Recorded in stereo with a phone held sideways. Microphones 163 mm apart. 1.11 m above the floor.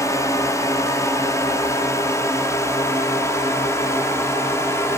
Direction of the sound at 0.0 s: 20° left (ahead or behind).